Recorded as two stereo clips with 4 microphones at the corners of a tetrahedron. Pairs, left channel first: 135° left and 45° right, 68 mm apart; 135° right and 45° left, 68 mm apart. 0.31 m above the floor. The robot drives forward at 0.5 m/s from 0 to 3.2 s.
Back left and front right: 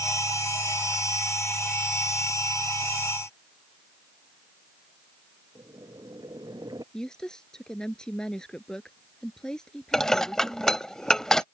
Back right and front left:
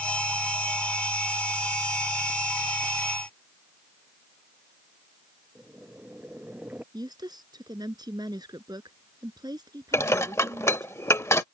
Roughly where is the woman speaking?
Ahead left.